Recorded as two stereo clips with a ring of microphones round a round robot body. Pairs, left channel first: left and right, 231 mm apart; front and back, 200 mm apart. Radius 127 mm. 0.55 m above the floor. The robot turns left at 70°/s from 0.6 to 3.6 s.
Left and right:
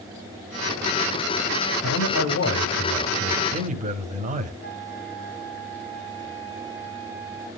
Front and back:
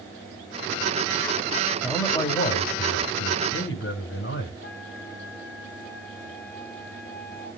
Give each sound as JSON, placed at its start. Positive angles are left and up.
{"t": 1.8, "sound": "a man speaking", "azimuth_deg": 90, "distance_m": 3.5}
{"t": 4.6, "sound": "a flute", "azimuth_deg": 35, "distance_m": 4.5}